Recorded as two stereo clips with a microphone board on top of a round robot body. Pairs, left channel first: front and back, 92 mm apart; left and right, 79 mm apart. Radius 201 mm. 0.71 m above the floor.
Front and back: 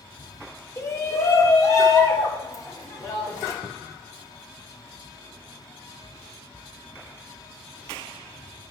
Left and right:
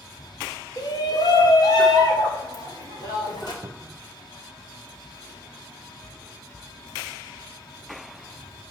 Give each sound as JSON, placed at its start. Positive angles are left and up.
{"t": 0.8, "sound": "a shout", "azimuth_deg": 60, "distance_m": 2.0}
{"t": 3.6, "sound": "a cupboard door", "azimuth_deg": -55, "distance_m": 0.7}